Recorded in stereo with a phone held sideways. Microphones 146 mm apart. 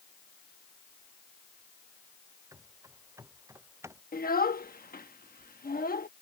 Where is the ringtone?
I don't hear a ringtone.